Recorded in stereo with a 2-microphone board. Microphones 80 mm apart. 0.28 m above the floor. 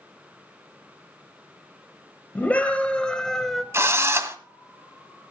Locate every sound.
2.4 s a scream: 20° left (ahead or behind), 1.5 m; by 3.6 s centre (ahead or behind), 1.5 m
3.7 s a drill: 35° right (ahead or behind), 1.5 m